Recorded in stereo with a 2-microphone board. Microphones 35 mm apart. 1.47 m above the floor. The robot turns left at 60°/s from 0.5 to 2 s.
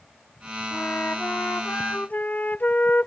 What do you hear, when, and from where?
0.7 s a flute: 130° left; by 3.1 s 55° left